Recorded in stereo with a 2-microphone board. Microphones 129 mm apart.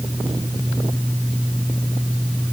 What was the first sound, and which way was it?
Only background noise.